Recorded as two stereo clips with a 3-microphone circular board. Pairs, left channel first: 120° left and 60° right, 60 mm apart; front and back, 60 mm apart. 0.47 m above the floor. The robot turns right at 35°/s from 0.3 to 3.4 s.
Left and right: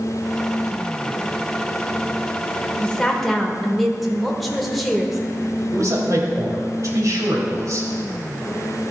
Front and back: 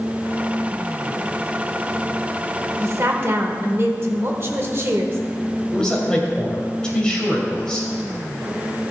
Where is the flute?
I don't hear a flute.